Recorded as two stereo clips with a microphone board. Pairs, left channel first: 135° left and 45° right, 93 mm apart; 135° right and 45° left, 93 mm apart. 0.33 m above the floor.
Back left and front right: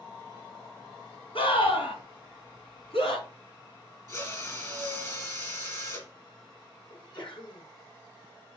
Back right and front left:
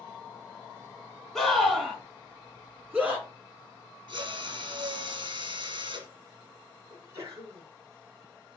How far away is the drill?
About 2.5 m.